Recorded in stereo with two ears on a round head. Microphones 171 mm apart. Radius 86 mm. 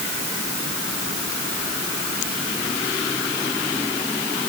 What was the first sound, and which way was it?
Only background noise.